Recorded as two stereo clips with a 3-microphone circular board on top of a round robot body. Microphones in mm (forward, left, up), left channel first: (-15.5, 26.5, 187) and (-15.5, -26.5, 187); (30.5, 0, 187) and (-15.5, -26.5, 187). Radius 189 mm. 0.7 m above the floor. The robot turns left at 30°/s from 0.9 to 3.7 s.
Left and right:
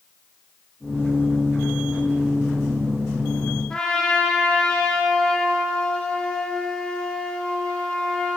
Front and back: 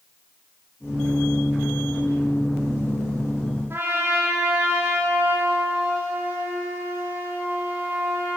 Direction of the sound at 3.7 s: 165° left.